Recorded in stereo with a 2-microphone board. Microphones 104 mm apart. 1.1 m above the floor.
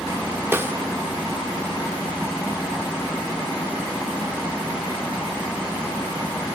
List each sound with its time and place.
0.5 s a snare drum: 20° right (ahead or behind), 0.9 m